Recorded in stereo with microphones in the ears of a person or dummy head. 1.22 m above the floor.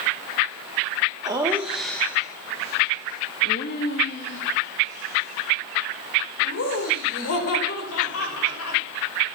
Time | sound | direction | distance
1.2 | laughter | 20° right (ahead or behind) | 1.6 m